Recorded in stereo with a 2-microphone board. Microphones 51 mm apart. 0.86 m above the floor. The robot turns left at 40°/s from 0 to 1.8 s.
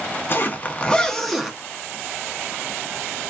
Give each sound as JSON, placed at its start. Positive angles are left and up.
{"t": 0.3, "sound": "a zipper", "side_deg": 40, "distance_m": 0.7}